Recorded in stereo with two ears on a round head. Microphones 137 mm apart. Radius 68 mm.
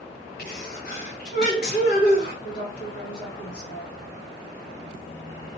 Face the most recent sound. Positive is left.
turn(degrees=50)  # may be behind; listen again after turning